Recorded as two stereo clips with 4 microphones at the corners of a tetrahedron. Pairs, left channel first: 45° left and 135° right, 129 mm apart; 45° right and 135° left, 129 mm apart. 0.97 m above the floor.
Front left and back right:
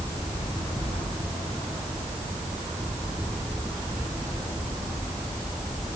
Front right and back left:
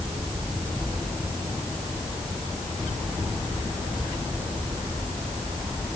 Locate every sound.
Only background noise.